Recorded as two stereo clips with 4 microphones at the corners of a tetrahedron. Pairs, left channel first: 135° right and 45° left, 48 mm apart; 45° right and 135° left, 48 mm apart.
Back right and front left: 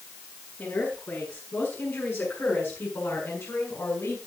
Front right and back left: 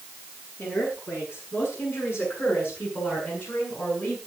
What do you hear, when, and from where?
0.6 s a woman speaking: 85° right, 9 m; by 4.2 s 100° right, 6 m